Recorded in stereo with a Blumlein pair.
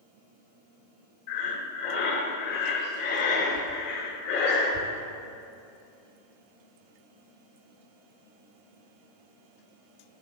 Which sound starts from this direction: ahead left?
Breathing, at 1.3 s.